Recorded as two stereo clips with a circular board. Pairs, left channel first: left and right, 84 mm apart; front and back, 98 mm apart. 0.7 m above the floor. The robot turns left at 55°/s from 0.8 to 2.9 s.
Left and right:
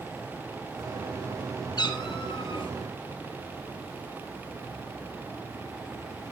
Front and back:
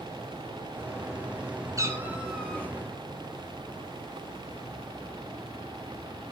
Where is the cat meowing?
125° left, 4 m; by 2.7 s 70° left, 4 m.